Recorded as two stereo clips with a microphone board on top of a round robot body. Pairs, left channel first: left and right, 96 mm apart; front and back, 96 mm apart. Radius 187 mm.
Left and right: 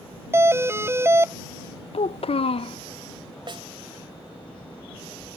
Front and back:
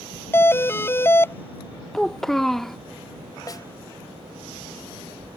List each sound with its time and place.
0.3 s a doorbell: 45° right
1.9 s a child speaking: 85° left
3.5 s a snare drum: 55° right